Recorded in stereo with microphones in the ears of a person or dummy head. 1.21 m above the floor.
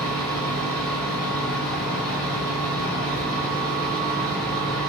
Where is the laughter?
I don't hear laughter.